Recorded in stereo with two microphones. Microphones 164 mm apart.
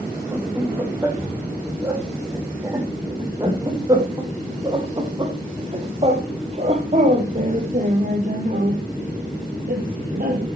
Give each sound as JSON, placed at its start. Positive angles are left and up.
{"t": 0.3, "sound": "laughter", "side_deg": -15, "distance_m": 6.0}